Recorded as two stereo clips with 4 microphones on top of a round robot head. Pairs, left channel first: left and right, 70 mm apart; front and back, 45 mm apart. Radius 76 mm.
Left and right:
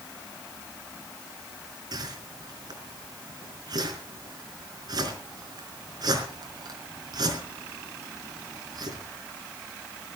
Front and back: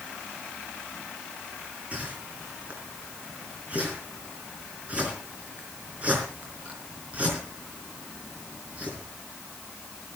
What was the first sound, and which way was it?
A whoosh, 120° right.